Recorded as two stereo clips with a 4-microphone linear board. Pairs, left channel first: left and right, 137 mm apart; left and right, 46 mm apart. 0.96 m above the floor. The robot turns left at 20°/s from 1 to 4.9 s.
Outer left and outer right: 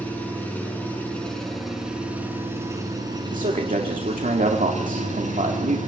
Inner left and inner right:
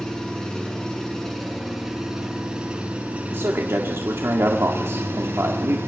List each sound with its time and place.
0.0 s an engine running: 10° left, 6.5 m; by 5.9 s 65° right, 6.5 m
3.3 s a man speaking: 70° right, 2.0 m; by 5.8 s 105° right, 2.0 m